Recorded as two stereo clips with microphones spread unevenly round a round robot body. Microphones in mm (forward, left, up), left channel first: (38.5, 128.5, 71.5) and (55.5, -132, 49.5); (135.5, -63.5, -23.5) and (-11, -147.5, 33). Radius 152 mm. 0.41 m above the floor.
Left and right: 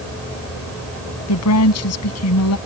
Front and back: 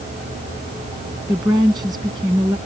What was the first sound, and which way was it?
A woman speaking, 130° left.